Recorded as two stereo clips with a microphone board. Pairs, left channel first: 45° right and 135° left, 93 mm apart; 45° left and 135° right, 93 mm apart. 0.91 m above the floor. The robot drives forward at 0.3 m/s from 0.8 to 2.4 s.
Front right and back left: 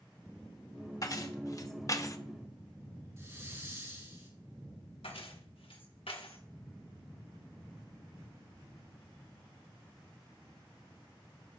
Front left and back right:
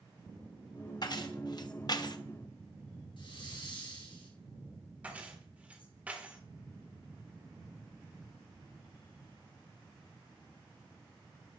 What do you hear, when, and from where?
1.0 s keys jangling: 5° left, 1.1 m
3.2 s a hiss: 75° left, 3.5 m
5.0 s keys jangling: 60° right, 1.6 m